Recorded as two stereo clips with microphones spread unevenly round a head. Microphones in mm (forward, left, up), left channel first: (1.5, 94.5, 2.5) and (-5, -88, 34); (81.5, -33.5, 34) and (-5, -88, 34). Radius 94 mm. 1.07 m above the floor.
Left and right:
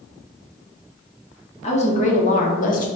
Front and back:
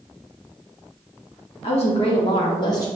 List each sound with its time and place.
1.6 s a woman speaking: 40° left, 1.2 m; by 2.9 s 80° left, 0.7 m